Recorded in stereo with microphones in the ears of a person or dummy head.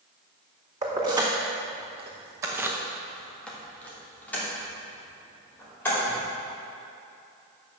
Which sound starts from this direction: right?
Keys jangling, at 0.8 s.